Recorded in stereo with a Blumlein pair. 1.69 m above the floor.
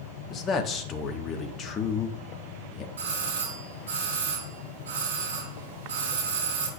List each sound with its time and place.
0.3 s a man speaking: 25° left, 1.1 m
3.0 s a doorbell: 55° right, 4 m